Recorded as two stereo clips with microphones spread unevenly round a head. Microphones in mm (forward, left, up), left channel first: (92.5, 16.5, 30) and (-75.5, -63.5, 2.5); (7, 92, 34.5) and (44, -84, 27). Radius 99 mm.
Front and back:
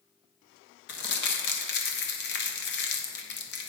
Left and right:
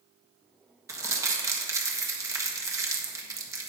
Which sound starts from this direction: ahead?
Crumpling, at 0.9 s.